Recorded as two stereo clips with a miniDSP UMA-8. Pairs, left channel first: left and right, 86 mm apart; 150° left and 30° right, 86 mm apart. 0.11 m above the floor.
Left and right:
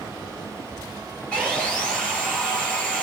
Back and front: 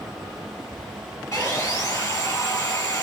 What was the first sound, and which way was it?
Sawing, 160° left.